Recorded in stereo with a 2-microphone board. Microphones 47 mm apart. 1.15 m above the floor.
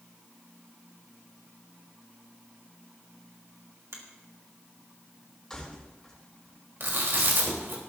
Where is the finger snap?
75° right (ahead or behind), 2.5 m.